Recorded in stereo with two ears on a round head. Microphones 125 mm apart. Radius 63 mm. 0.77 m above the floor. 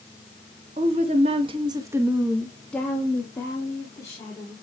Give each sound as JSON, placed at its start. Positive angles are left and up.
{"t": 0.8, "sound": "a woman speaking", "side_deg": -45, "distance_m": 1.6}